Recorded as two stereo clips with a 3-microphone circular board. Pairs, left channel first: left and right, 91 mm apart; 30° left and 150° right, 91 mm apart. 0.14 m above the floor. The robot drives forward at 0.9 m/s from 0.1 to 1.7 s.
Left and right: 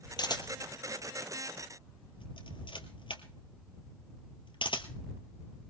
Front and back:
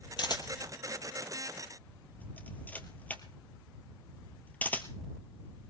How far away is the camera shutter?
About 2 m.